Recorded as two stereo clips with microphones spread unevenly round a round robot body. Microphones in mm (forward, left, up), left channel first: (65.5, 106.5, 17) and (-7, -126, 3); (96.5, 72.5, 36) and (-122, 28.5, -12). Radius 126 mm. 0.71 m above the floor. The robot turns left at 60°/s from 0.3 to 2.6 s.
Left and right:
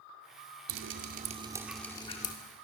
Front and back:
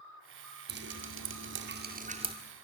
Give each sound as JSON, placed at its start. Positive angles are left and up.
{"t": 0.7, "sound": "dripping", "azimuth_deg": -130, "distance_m": 2.0}